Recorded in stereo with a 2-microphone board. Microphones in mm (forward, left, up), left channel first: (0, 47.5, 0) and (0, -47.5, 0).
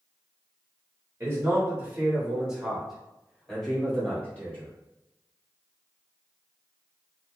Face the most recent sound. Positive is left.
turn(degrees=15)  # may be behind; listen again after turning